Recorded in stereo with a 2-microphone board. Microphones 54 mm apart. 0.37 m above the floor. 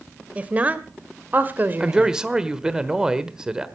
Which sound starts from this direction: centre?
A man speaking, at 1.8 s.